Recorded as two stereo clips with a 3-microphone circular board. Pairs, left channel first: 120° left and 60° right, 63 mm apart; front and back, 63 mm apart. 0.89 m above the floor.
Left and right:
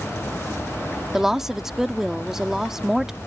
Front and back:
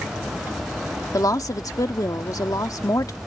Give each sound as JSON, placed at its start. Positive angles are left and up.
{"t": 1.1, "sound": "a woman speaking", "azimuth_deg": 25}